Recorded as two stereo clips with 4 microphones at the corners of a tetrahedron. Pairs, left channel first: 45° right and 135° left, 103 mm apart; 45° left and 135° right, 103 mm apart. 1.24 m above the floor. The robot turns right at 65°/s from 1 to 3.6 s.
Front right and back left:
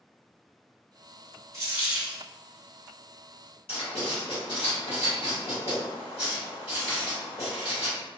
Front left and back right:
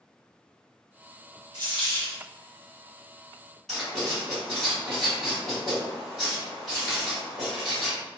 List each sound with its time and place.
1.5 s a dropped coin: 170° right, 1.1 m; by 2.2 s 130° right, 1.1 m
3.7 s writing: 40° right, 1.6 m